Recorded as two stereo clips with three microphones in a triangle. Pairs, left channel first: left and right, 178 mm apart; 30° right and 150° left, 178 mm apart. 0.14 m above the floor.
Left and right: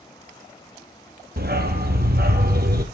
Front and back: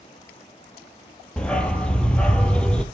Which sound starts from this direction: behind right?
A dog barking, at 1.4 s.